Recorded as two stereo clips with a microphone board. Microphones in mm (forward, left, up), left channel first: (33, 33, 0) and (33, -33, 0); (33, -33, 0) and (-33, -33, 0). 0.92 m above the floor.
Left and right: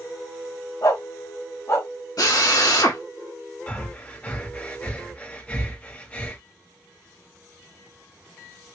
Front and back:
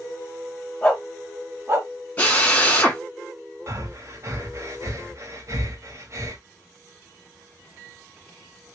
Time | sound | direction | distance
0.8 | a dog barking | 75° left | 1.3 m
2.2 | a drill | 70° left | 1.6 m
3.7 | breathing | 155° left | 1.0 m